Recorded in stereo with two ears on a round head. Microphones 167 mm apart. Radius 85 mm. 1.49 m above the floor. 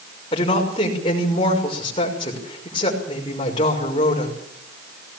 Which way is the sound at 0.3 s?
25° left (ahead or behind).